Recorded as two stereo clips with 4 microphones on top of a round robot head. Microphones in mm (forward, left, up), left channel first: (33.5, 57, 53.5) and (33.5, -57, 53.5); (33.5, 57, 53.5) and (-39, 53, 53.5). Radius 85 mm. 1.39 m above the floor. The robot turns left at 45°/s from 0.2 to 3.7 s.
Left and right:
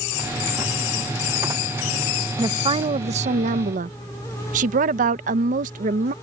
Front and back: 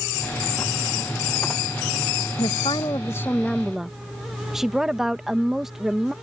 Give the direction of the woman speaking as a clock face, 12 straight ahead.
1 o'clock.